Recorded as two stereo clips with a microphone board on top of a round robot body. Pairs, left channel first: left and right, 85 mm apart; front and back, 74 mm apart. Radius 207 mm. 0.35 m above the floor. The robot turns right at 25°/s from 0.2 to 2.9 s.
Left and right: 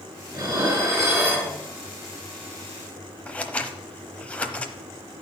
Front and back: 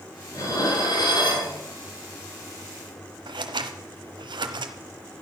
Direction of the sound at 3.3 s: 165° left.